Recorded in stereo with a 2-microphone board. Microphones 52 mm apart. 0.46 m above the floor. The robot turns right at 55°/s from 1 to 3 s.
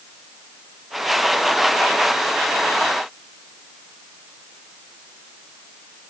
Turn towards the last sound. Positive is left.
No sound to turn to.